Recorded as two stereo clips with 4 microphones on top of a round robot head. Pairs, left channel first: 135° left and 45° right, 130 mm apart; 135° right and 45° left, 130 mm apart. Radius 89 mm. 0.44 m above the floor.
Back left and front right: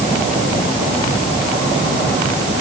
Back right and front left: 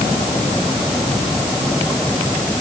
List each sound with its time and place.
Only background noise.